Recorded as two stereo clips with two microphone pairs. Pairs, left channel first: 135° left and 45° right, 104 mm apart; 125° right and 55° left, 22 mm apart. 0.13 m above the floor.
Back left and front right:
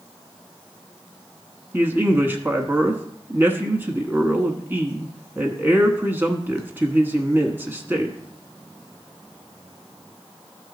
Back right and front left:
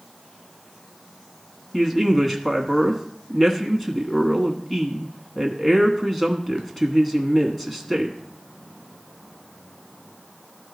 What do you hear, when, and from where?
1.7 s a man speaking: 60° right, 1.1 m